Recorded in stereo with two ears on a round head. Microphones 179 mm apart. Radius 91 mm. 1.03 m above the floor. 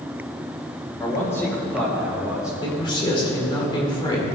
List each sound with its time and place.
1.0 s a man speaking: 20° left (ahead or behind), 2.5 m; by 2.5 s 5° right (ahead or behind), 2.5 m
2.6 s a man speaking: 25° left (ahead or behind), 2.5 m